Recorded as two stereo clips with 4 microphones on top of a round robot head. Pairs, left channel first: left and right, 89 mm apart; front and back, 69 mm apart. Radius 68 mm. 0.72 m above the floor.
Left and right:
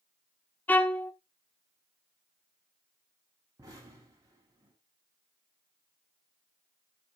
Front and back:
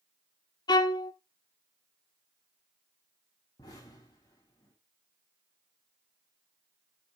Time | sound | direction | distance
0.7 | a violin | 20° left | 0.9 m
3.6 | an explosion | 40° right | 6 m